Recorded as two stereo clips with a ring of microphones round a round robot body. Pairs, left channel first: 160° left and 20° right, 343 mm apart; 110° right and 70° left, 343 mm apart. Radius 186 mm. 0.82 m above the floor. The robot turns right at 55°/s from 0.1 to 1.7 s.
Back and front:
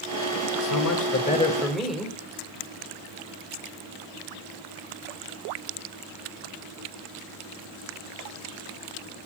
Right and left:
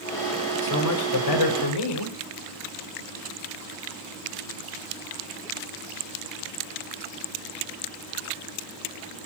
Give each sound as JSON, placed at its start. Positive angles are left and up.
{"t": 0.6, "sound": "a man speaking", "azimuth_deg": -170, "distance_m": 4.0}